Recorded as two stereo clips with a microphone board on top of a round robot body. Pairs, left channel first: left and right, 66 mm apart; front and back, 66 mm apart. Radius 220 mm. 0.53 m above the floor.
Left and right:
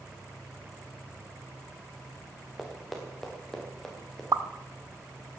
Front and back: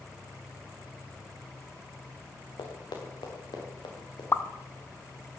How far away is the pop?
About 1.2 m.